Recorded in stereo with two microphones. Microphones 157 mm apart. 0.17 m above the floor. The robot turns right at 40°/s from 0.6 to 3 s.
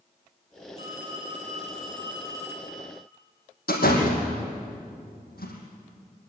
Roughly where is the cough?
No cough in this recording.